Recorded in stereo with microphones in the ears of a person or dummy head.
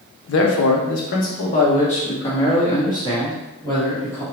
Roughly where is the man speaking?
Left.